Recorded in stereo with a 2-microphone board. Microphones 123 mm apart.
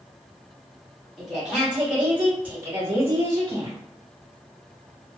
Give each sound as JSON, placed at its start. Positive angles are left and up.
{"t": 1.2, "sound": "a woman speaking", "side_deg": 0, "distance_m": 1.7}